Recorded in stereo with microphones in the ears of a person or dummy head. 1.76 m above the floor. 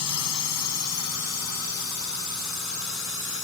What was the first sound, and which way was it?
A drone, 85° left.